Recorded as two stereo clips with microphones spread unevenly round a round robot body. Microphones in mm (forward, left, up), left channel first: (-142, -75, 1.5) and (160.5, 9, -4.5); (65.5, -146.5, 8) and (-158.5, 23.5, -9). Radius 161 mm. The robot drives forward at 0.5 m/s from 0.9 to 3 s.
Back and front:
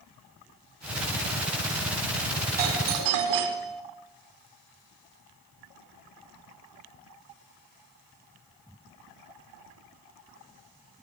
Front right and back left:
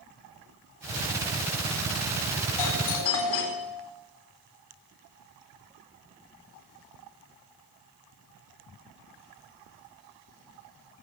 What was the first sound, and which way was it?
A doorbell, 5° right.